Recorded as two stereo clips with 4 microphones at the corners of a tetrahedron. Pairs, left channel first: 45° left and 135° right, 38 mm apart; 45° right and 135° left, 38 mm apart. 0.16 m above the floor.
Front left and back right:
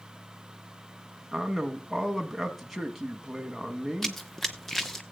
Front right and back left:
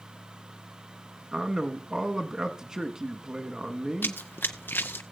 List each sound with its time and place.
1.3 s a man speaking: 145° left, 1.2 m
4.0 s running footsteps: 40° right, 0.7 m